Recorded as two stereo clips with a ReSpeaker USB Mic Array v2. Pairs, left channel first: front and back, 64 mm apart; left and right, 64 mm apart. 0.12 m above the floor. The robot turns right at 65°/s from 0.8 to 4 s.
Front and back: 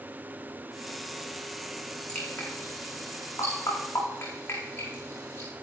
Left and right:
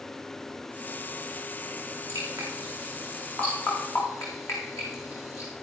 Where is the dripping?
70° right, 8 m; by 5.5 s 50° left, 8 m.